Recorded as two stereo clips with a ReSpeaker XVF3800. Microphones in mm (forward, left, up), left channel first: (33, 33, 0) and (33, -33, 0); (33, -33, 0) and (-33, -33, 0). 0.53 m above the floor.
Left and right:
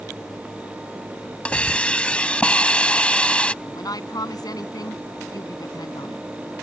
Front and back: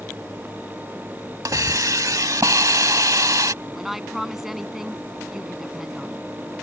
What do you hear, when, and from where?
1.4 s a hiss: 160° left
3.6 s a woman speaking: 95° left